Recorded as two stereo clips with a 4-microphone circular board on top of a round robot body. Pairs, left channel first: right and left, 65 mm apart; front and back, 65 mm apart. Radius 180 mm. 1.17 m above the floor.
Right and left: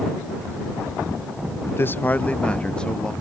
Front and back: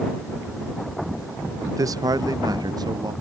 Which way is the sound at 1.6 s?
140° right.